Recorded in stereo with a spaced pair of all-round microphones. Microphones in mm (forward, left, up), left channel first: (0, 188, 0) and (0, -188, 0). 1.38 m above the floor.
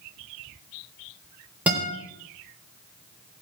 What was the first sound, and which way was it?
A guitar, 5° right (ahead or behind).